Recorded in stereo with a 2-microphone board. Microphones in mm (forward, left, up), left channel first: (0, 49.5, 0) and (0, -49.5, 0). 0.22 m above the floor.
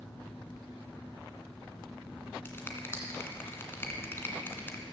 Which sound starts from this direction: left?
A finger snap, at 2.5 s.